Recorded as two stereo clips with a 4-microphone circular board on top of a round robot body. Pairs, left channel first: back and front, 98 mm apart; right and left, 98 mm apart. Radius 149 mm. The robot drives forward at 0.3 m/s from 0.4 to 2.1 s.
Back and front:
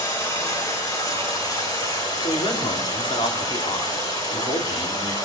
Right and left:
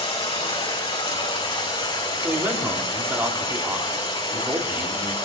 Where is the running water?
125° right, 4 m; by 5.3 s 130° right, 4 m.